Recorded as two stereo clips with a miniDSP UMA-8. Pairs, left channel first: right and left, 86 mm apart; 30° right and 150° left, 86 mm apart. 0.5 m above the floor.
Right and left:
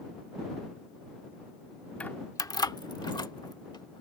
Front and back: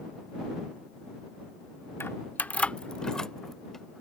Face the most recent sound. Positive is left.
turn(degrees=-115)